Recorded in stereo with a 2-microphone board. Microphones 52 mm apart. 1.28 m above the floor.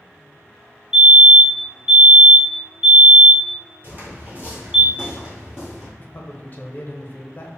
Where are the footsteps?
40° right (ahead or behind), 1.5 m; by 5.9 s 10° right (ahead or behind), 1.6 m.